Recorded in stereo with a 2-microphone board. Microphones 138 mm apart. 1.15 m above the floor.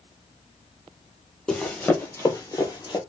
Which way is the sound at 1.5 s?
5° left (ahead or behind).